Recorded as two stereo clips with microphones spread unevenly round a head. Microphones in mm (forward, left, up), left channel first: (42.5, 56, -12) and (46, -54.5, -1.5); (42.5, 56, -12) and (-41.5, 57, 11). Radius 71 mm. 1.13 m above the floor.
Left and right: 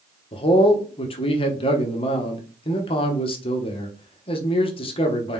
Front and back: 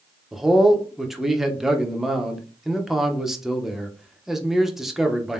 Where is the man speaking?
80° left, 1.0 m.